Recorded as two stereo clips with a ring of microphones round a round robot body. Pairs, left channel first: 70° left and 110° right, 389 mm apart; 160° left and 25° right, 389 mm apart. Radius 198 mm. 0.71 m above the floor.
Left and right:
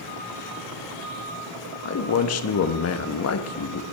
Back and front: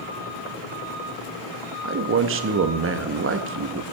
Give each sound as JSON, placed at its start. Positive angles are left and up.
{"t": 1.9, "sound": "a man speaking", "azimuth_deg": 25, "distance_m": 0.9}